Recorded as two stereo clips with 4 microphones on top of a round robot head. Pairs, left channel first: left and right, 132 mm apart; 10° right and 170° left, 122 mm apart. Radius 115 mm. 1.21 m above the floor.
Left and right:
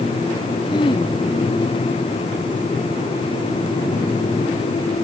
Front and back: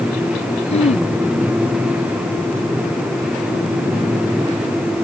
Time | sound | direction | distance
0.7 | throat clearing | 30° left | ?